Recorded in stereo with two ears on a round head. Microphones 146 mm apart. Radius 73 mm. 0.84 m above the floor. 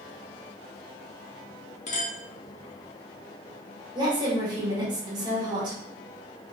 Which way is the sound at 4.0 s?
25° right (ahead or behind).